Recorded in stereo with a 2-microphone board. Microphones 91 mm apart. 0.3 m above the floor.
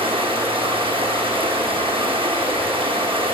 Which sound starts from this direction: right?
Running water, at 0.0 s.